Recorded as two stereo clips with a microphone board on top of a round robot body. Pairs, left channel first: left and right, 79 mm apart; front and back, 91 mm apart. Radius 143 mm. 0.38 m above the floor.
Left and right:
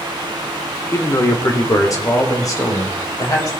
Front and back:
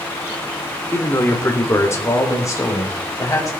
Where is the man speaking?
55° left, 1.9 m.